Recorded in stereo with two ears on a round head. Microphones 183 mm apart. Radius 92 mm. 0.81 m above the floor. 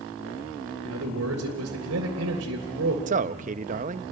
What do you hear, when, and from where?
0.8 s a man speaking: 80° right, 3 m
3.1 s a man speaking: 40° right (ahead or behind), 0.6 m